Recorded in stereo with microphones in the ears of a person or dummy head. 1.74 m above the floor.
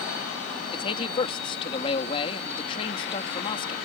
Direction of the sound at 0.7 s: 30° left (ahead or behind).